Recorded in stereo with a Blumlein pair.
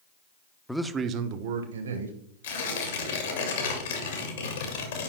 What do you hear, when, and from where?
0.7 s a man speaking: 5° left, 0.6 m; by 2.2 s 70° right, 1.5 m
2.4 s tearing paper: 65° left, 1.9 m